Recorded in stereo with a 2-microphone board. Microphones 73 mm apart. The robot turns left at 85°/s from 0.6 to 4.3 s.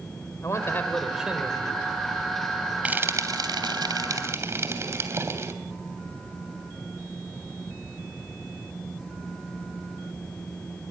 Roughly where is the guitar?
No guitar in this recording.